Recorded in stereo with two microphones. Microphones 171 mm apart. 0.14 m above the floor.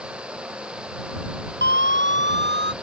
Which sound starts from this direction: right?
A siren, at 1.6 s.